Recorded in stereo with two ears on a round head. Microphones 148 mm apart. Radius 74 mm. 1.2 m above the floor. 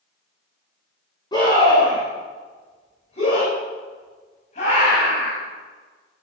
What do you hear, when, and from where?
1.3 s a scream: 25° left (ahead or behind), 5 m; by 5.4 s 50° left (ahead or behind), 9 m